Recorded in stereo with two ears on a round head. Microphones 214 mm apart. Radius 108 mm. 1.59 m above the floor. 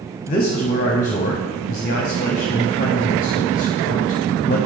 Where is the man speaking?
35° left (ahead or behind), 0.7 m.